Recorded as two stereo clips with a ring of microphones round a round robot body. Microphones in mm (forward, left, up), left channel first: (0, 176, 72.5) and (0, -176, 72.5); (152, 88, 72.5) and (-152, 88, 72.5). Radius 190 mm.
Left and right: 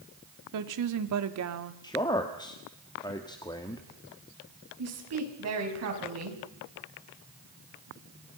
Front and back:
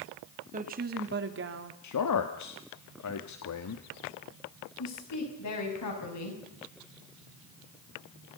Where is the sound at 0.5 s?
115° right, 1.9 m; by 1.7 s 135° right, 1.9 m.